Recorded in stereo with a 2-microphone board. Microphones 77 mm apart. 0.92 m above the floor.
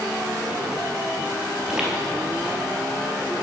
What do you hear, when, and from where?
1.6 s footsteps: 10° right (ahead or behind), 1.3 m